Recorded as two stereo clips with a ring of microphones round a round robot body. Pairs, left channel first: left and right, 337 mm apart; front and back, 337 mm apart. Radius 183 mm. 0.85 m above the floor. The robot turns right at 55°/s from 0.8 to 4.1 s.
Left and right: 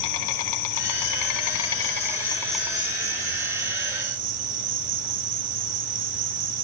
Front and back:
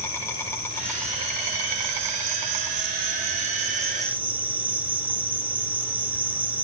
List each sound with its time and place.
0.0 s an insect: 85° left, 4.5 m; by 6.6 s 95° right, 4.5 m